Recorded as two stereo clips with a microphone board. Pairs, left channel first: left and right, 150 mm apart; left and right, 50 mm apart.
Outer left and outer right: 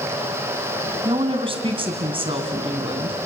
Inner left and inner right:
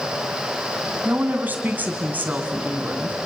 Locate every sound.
1.1 s a woman speaking: 35° right (ahead or behind), 2 m